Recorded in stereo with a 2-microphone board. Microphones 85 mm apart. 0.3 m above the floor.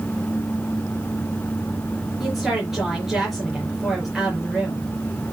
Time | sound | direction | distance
2.2 | a woman speaking | 5° right (ahead or behind) | 5 m